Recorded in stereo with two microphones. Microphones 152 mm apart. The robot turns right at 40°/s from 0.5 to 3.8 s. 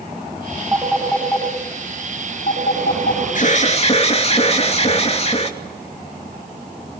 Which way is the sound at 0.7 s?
15° right (ahead or behind).